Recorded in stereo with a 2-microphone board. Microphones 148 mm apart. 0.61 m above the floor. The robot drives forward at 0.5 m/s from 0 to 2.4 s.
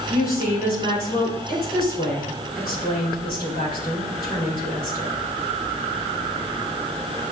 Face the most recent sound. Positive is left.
turn(degrees=75)  # may be behind; listen again after turning